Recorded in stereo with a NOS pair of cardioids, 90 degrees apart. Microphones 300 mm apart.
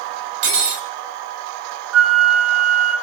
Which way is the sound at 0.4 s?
60° right.